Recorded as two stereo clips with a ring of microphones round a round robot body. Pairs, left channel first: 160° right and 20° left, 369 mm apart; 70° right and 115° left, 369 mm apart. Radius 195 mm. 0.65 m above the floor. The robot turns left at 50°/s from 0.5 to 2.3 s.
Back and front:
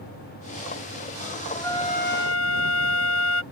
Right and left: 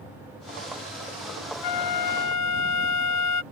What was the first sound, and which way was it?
A flute, 75° right.